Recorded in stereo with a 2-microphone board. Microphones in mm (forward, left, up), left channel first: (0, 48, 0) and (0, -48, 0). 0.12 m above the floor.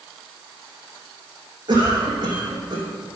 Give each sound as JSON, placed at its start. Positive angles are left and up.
{"t": 1.7, "sound": "a cough", "side_deg": -50, "distance_m": 4.5}